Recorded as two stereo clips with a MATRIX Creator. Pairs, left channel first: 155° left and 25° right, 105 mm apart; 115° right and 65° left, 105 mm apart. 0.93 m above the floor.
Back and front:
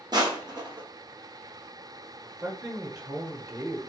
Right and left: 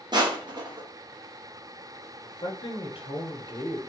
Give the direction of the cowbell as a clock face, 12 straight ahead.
I don't hear a cowbell.